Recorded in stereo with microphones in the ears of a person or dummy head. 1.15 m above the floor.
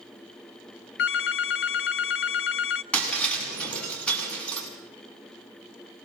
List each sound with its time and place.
1.0 s a phone ringing: 60° left (ahead or behind), 0.6 m
2.9 s breaking glass: 5° left (ahead or behind), 7.5 m